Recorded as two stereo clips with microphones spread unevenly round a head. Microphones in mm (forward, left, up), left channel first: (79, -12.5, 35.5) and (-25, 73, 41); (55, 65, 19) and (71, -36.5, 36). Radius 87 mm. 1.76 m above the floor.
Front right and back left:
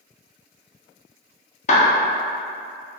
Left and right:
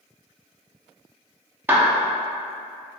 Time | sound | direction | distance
1.7 | a clap | 35° right | 0.6 m